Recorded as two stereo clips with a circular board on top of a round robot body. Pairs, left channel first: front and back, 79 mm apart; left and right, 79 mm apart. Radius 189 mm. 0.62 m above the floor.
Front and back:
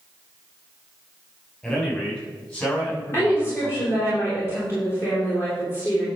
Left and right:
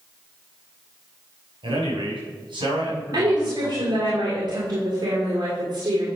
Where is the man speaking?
75° right, 5 m; by 4.1 s 60° right, 7 m.